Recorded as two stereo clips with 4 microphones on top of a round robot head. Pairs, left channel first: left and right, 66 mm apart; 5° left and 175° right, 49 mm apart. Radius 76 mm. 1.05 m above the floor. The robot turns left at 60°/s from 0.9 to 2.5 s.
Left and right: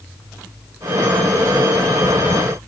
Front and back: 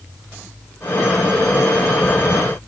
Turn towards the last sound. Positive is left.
No sound to turn to.